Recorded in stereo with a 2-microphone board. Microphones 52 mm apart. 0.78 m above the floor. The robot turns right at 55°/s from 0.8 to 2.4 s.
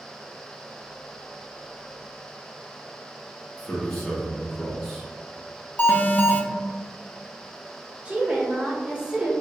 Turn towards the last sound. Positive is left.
turn(degrees=-20)  # may be behind; listen again after turning